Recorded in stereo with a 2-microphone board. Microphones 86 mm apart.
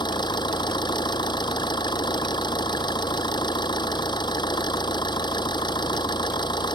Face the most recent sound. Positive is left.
turn(degrees=70)  # may be behind; listen again after turning